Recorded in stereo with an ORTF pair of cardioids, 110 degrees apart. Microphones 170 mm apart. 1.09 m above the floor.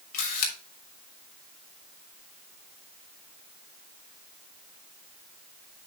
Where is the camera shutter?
60° left, 3 m.